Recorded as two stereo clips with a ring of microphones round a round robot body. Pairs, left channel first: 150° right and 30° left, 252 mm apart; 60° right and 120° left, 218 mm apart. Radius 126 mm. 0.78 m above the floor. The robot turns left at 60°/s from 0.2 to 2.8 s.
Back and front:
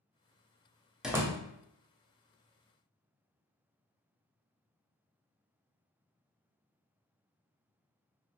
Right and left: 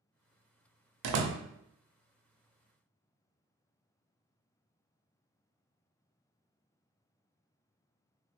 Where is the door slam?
120° left, 0.5 m; by 1.4 s 95° left, 0.5 m.